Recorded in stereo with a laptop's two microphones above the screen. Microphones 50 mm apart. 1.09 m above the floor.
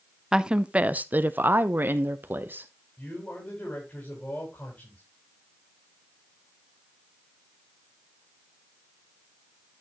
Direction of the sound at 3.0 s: 40° left (ahead or behind).